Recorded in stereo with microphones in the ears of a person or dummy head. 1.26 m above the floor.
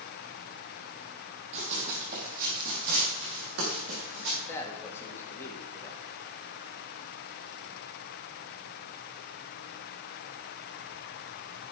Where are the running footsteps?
35° right (ahead or behind), 2.5 m; by 4.4 s 60° right (ahead or behind), 6 m.